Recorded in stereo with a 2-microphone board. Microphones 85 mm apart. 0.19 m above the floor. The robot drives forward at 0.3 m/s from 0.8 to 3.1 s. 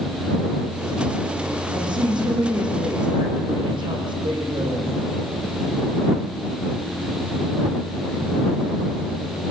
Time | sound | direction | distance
1.7 | a woman speaking | 65° right (ahead or behind) | 7 m